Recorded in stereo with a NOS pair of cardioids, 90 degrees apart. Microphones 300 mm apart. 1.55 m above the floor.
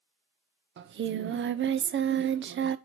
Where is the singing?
40° right, 0.7 m.